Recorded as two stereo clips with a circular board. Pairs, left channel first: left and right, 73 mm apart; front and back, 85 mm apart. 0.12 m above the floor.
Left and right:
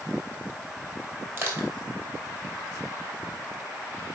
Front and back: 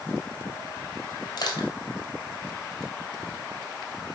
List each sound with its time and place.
1.4 s crushing: 35° right, 1.9 m